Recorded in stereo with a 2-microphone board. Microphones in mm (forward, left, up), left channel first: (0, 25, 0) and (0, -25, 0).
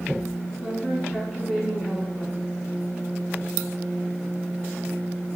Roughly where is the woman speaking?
Centre.